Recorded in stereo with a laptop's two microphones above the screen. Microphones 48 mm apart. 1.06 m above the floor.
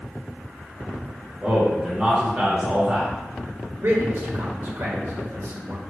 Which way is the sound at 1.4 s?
25° right (ahead or behind).